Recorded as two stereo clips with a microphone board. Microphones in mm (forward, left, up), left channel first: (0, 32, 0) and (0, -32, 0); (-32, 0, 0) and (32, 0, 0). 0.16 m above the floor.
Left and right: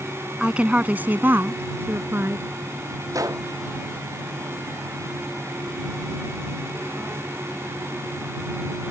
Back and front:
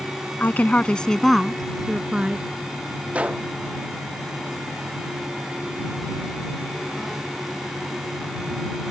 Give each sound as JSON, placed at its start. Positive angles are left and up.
{"t": 0.4, "sound": "a woman speaking", "azimuth_deg": -155}
{"t": 3.1, "sound": "a gunshot", "azimuth_deg": -70}